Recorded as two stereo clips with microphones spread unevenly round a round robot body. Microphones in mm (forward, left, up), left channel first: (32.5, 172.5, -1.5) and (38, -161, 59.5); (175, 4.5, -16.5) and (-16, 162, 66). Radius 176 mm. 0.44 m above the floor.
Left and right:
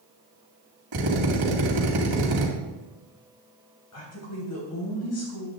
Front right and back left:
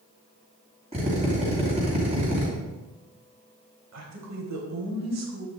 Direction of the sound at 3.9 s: 125° left.